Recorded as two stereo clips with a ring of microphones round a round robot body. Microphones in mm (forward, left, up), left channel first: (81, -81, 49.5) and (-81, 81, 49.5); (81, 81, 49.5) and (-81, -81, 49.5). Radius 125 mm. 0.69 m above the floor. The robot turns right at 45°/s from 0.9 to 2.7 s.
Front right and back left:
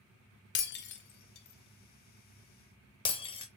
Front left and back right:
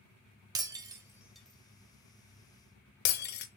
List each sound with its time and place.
0.6 s breaking glass: 65° right, 0.5 m; by 3.5 s 15° left, 0.5 m